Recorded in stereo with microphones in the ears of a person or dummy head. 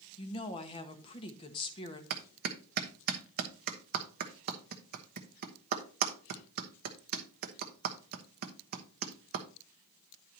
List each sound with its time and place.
0.2 s a woman speaking: 30° left (ahead or behind), 1.6 m
2.1 s a clap: 50° right (ahead or behind), 1.2 m